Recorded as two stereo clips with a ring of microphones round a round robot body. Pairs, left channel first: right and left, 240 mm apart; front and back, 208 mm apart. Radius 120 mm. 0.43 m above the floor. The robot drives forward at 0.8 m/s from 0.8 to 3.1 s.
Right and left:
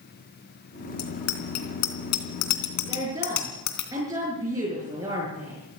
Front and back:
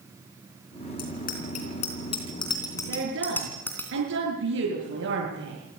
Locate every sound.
1.0 s a bicycle bell: 55° right, 3.5 m; by 3.9 s 80° right, 3 m
2.9 s a woman speaking: 165° left, 6.5 m